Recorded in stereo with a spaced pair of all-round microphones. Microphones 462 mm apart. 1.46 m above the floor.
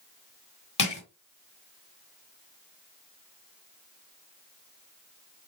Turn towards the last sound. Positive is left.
turn(degrees=55)  # may be behind; listen again after turning